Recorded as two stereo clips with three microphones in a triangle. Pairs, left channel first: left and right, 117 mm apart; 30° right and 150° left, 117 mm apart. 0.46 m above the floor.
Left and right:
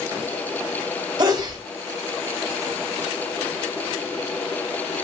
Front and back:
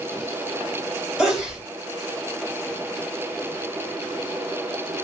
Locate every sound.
1.2 s a sneeze: 130° right, 1.9 m